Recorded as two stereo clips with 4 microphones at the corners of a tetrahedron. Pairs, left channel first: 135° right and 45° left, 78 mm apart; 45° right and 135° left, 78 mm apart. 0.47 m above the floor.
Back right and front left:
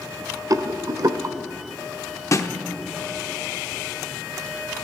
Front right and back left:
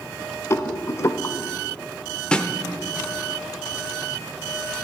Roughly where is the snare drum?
Behind right.